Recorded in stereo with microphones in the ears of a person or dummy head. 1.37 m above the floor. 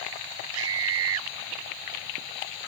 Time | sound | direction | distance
0.5 | a scream | 75° right (ahead or behind) | ?